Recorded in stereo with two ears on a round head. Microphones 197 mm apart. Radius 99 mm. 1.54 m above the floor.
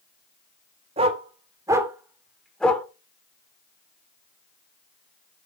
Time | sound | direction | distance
1.0 | a dog barking | 30° right (ahead or behind) | 2 m